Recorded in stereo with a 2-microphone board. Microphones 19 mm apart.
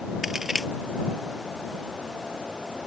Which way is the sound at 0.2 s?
20° right (ahead or behind).